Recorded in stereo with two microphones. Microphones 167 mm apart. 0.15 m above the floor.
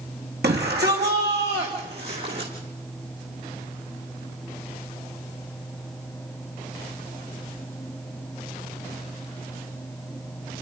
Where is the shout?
80° right, 8 m.